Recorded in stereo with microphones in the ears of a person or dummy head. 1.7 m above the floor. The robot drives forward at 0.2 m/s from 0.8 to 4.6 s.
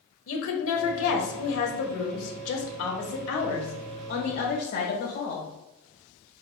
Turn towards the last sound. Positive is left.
turn(degrees=55)  # may be behind; listen again after turning